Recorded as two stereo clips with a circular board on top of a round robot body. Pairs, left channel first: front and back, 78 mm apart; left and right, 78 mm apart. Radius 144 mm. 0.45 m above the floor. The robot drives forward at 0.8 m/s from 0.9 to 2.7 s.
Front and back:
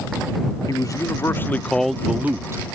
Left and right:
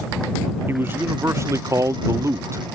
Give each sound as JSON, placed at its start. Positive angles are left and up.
{"t": 0.7, "sound": "a man speaking", "azimuth_deg": -35}